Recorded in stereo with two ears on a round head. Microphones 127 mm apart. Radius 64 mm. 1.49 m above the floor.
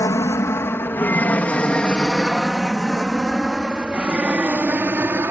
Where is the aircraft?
20° left (ahead or behind); by 5.3 s 15° right (ahead or behind).